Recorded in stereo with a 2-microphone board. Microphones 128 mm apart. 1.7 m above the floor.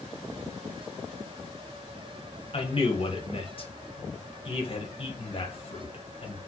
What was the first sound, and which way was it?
A man speaking, 45° left (ahead or behind).